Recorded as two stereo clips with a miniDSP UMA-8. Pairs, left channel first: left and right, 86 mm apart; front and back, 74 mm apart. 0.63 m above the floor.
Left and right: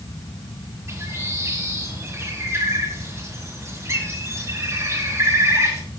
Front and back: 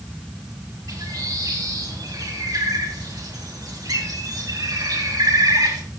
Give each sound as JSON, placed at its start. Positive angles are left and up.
{"t": 0.9, "sound": "a bird", "azimuth_deg": -145, "distance_m": 2.0}